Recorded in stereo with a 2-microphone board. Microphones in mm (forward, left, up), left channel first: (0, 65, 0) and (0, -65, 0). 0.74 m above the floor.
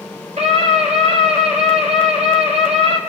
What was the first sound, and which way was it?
A scream, 60° right (ahead or behind).